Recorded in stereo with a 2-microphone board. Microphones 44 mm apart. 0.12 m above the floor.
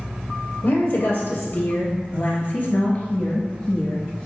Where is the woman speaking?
55° left (ahead or behind), 2.5 m; by 4.3 s 20° left (ahead or behind), 2 m.